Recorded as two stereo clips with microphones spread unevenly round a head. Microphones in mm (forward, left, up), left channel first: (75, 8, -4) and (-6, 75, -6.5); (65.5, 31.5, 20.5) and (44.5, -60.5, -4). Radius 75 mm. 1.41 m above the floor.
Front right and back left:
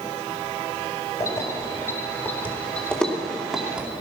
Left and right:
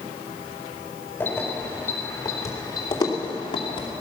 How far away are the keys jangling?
About 4 m.